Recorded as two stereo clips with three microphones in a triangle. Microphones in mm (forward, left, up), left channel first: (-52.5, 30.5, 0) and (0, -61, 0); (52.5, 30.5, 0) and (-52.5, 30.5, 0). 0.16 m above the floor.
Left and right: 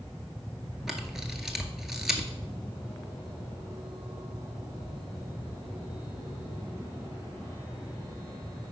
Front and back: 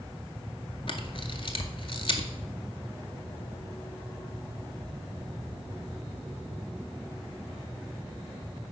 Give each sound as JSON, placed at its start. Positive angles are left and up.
{"t": 0.9, "sound": "a camera shutter", "azimuth_deg": 25, "distance_m": 0.6}